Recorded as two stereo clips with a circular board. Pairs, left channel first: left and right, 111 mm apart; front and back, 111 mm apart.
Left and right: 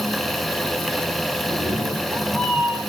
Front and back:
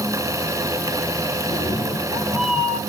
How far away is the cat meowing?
About 4 m.